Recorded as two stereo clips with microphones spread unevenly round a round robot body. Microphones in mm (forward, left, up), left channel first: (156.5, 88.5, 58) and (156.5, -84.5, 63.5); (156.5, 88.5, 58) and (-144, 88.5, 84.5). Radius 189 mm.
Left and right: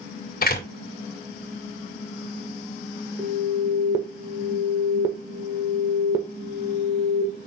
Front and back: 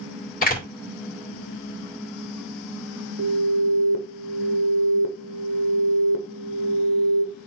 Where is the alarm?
150° right, 1.4 m.